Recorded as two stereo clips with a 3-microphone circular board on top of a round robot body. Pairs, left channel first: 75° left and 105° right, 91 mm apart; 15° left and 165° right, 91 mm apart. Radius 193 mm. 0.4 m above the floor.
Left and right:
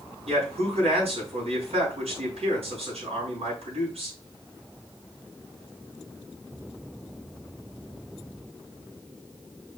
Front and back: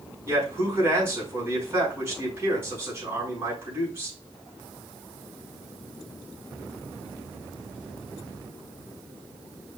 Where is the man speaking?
100° right, 7 m.